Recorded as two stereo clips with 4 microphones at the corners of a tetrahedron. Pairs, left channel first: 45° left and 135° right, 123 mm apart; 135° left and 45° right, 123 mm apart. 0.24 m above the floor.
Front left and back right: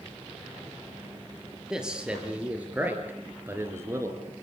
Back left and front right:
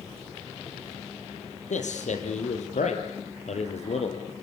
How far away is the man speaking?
About 5 m.